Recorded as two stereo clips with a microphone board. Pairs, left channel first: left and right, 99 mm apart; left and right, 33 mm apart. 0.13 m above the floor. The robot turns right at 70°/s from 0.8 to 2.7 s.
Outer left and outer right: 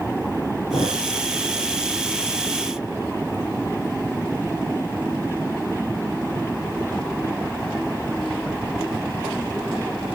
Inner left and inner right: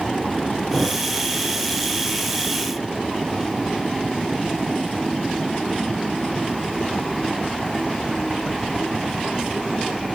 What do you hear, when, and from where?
0.7 s a thud: 65° left (ahead or behind), 5 m; by 1.0 s 75° left (ahead or behind), 5 m